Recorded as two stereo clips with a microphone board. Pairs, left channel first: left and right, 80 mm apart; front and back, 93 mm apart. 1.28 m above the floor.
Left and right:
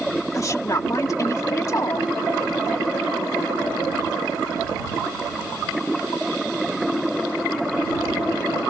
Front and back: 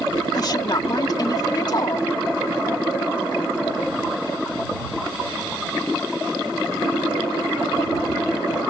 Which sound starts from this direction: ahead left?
A woman speaking, at 0.3 s.